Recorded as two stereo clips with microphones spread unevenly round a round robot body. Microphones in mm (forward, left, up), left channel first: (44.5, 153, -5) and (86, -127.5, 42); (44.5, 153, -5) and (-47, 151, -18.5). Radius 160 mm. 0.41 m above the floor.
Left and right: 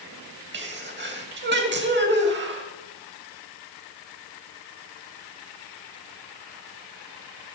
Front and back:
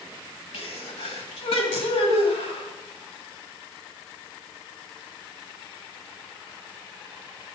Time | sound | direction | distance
0.5 | a sneeze | 30° right | 2.5 m